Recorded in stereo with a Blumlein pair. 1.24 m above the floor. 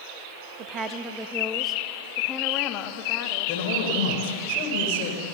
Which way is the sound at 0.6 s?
30° right.